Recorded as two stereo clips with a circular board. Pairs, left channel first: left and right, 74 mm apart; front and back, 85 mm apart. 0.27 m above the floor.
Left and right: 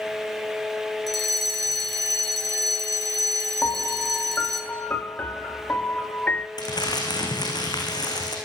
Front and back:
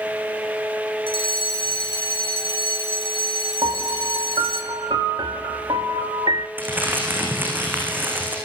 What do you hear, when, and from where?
1.1 s a fire alarm: straight ahead, 6 m
3.6 s a piano: 155° left, 1.0 m
6.6 s crumpling: 110° left, 6 m